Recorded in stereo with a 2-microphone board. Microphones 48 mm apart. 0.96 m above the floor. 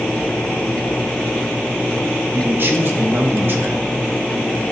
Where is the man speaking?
45° right (ahead or behind), 0.8 m.